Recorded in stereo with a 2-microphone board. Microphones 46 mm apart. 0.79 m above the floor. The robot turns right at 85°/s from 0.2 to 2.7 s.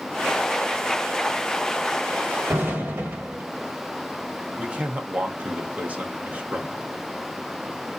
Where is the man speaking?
30° right (ahead or behind), 0.9 m.